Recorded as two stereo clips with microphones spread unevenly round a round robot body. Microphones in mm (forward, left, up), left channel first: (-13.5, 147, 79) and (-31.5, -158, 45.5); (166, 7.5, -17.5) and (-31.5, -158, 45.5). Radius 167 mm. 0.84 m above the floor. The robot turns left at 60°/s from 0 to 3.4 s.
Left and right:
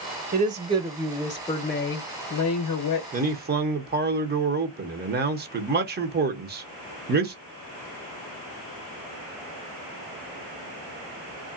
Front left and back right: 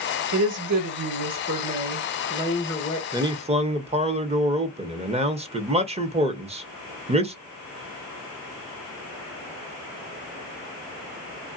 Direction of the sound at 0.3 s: 130° right.